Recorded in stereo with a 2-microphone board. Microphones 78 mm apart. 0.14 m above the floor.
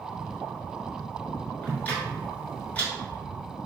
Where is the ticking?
20° left (ahead or behind), 1.3 m.